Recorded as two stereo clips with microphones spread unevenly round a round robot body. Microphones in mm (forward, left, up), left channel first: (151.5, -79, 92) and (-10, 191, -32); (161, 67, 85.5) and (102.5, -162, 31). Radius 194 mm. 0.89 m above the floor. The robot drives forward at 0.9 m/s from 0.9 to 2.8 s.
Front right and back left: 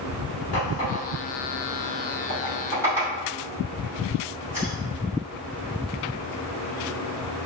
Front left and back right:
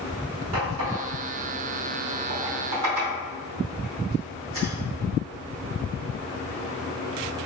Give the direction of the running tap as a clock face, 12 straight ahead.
4 o'clock.